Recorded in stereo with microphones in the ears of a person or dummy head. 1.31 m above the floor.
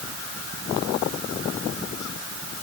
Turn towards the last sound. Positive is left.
No sound to turn to.